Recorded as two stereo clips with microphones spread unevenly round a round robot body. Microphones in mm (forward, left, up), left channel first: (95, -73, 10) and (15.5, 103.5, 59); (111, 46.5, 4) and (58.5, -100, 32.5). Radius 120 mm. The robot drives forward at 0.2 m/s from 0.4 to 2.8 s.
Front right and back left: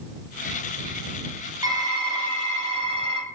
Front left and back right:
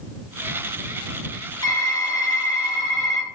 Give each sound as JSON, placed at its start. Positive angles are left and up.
{"t": 1.6, "sound": "typing on a keyboard", "azimuth_deg": 30, "distance_m": 0.8}